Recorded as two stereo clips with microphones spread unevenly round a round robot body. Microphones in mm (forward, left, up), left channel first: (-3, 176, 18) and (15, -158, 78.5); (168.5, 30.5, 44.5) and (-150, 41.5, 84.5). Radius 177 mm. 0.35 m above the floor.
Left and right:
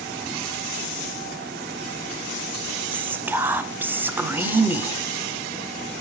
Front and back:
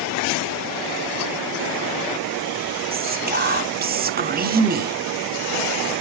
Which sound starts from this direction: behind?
Whispering, at 2.9 s.